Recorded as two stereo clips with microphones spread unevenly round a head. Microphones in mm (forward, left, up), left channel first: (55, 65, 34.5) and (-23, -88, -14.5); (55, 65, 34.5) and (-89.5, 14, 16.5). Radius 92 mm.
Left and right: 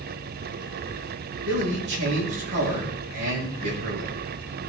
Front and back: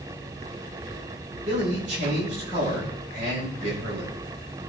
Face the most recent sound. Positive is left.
turn(degrees=-110)